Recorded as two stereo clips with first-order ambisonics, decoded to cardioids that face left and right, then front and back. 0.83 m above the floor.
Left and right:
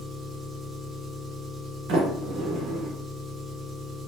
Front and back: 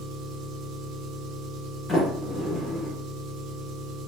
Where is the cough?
No cough in this recording.